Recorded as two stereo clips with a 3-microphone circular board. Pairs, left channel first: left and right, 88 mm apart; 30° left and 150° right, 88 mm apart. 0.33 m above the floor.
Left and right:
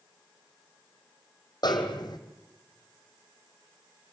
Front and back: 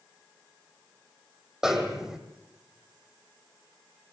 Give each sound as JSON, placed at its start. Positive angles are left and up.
{"t": 1.6, "sound": "a snare drum", "azimuth_deg": 130, "distance_m": 2.5}